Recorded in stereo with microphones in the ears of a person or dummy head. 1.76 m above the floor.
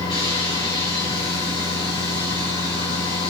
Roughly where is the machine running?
Left.